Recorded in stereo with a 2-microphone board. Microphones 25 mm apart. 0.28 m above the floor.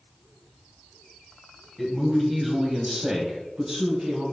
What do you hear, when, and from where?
1.8 s a man speaking: centre (ahead or behind), 1.4 m; by 4.2 s 40° right (ahead or behind), 1.9 m